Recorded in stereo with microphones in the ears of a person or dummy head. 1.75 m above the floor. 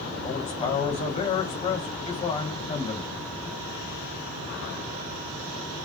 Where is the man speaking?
30° left (ahead or behind), 1.2 m.